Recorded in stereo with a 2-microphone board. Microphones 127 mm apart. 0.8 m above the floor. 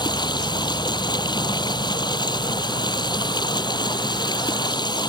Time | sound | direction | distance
0.0 | running water | 35° left (ahead or behind) | ?